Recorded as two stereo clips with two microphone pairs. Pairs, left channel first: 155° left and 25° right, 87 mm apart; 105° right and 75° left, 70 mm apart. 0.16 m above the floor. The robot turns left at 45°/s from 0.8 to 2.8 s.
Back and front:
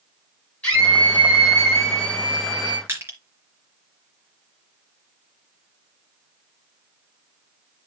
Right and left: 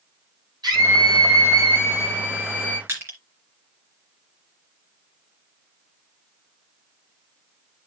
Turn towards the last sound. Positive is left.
turn(degrees=30)